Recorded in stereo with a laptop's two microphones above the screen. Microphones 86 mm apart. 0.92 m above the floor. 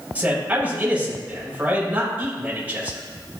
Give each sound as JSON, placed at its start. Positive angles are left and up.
{"t": 0.1, "sound": "a man speaking", "side_deg": -20, "distance_m": 4.0}